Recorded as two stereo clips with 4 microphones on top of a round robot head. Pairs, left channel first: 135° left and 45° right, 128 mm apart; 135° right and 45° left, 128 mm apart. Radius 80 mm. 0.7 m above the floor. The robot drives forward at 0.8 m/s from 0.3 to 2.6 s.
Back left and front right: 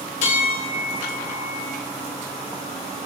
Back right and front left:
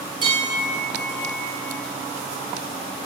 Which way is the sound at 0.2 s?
100° left.